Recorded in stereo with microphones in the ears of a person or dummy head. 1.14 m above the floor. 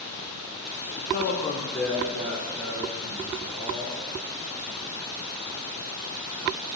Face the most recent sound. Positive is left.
turn(degrees=-75)  # may be behind; listen again after turning